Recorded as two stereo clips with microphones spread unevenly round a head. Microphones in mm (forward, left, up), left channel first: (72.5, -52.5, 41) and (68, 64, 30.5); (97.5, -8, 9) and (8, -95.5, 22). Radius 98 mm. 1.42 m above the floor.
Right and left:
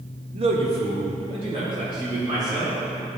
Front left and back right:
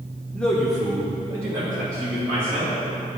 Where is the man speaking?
120° left, 0.7 m; by 2.8 s 155° left, 3 m.